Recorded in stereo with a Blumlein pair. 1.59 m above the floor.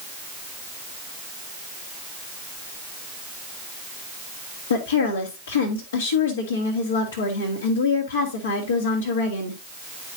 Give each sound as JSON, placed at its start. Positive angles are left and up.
{"t": 4.7, "sound": "a woman speaking", "azimuth_deg": 65, "distance_m": 1.8}